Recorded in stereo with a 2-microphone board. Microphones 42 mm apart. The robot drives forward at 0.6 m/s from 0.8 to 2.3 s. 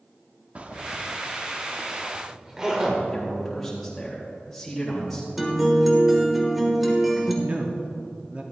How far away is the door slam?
I don't hear a door slam.